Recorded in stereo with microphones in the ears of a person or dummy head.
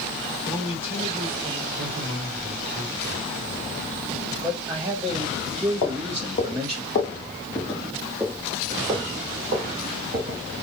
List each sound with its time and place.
0.4 s a man speaking: 15° right (ahead or behind), 3 m
1.8 s a man speaking: 15° right (ahead or behind), 2.5 m
4.4 s a man speaking: 15° right (ahead or behind), 1.0 m
5.8 s footsteps: 45° left (ahead or behind), 1.6 m; by 10.4 s 35° right (ahead or behind), 2 m